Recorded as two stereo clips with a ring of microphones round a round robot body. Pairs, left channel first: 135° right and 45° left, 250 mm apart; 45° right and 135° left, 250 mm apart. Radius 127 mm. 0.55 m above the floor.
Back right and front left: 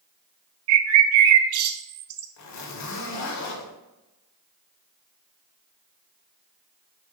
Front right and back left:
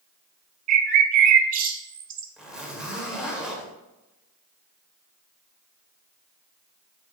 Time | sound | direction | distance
0.7 | a bird | 80° left | 0.8 m
2.4 | a zipper | 140° right | 2 m